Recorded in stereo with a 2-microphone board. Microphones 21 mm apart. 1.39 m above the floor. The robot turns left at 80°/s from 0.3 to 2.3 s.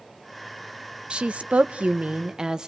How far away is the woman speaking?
About 1.1 m.